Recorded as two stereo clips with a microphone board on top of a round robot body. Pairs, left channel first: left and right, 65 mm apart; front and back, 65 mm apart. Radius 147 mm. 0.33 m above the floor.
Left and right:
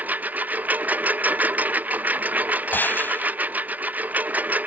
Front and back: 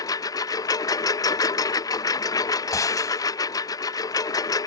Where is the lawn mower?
25° right.